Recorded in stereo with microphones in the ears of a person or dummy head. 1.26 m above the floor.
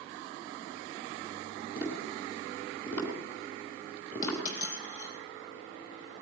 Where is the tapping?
15° left (ahead or behind), 4.5 m.